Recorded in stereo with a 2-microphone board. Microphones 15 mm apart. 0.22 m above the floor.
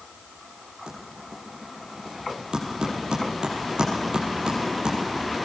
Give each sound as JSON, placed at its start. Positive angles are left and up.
{"t": 0.9, "sound": "typing on a keyboard", "side_deg": -80, "distance_m": 7.5}